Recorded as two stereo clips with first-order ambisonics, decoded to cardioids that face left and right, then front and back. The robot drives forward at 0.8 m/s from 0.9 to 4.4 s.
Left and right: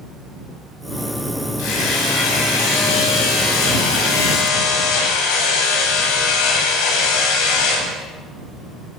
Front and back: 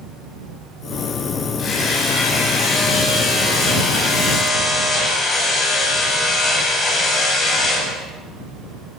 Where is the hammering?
65° left, 9 m; by 7.9 s 75° left, 8.5 m.